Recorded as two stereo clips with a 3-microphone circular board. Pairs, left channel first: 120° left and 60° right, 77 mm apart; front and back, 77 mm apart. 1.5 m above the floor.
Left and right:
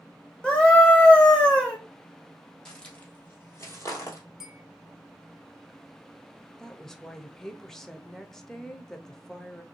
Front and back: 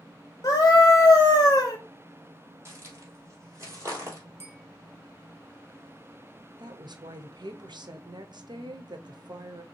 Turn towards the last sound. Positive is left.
turn(degrees=-155)